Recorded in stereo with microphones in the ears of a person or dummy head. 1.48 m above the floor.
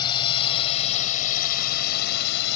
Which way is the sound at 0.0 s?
25° left (ahead or behind).